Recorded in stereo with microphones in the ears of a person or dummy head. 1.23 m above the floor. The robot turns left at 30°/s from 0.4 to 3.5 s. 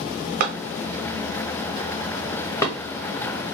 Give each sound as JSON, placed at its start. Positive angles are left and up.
{"t": 0.4, "sound": "a clap", "side_deg": -50, "distance_m": 1.0}